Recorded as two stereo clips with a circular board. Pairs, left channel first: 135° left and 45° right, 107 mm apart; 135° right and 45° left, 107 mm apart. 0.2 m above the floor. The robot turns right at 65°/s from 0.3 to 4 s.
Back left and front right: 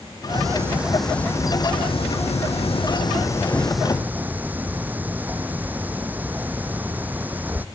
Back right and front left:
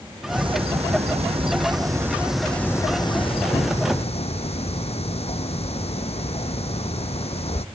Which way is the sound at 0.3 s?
Straight ahead.